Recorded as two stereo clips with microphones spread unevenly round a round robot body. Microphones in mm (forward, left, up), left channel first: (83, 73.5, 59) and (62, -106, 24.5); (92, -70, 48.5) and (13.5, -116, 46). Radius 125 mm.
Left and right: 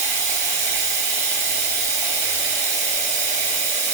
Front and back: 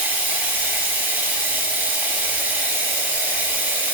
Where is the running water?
100° right, 1.0 m.